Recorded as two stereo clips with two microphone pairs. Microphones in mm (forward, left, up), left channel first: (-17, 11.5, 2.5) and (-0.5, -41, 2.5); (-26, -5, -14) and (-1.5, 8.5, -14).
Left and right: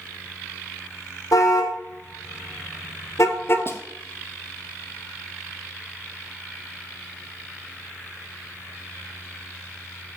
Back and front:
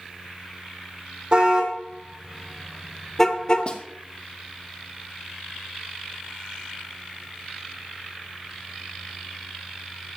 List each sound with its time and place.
1.3 s a car horn: 90° left, 3 m; by 3.7 s 160° left, 1.7 m
3.7 s a snare drum: 155° left, 2 m